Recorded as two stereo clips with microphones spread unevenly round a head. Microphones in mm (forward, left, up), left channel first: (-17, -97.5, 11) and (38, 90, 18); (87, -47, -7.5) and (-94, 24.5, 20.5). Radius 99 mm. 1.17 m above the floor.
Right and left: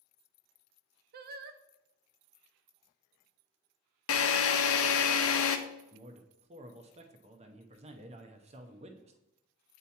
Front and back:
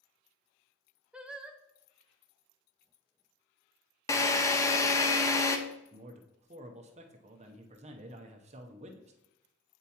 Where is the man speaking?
110° left, 0.6 m.